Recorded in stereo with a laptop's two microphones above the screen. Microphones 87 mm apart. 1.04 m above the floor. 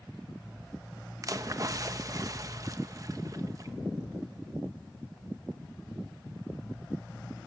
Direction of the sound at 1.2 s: 40° right (ahead or behind).